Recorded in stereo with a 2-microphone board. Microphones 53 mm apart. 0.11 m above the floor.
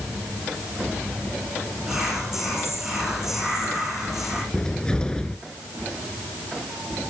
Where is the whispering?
15° right (ahead or behind), 7 m.